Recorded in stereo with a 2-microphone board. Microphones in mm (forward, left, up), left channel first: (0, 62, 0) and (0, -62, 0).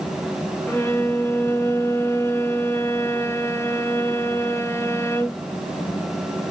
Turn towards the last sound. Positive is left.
turn(degrees=20)  # may be behind; listen again after turning